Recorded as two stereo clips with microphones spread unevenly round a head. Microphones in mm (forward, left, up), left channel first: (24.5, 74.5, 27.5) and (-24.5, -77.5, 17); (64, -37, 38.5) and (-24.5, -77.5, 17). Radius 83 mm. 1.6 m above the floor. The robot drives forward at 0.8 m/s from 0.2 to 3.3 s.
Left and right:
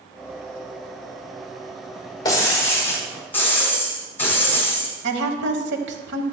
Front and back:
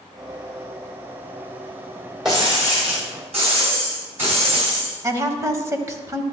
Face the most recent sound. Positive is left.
turn(degrees=-95)